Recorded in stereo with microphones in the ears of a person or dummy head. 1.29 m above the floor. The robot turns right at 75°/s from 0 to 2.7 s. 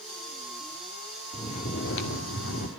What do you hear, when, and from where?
1.3 s snoring: 25° left, 2.5 m; by 2.7 s 125° left, 2.5 m